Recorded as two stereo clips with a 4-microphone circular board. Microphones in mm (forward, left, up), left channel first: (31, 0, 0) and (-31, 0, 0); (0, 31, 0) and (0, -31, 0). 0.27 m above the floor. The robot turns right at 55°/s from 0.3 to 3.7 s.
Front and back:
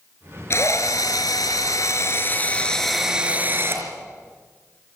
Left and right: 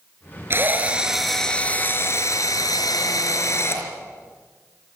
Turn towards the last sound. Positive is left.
turn(degrees=135)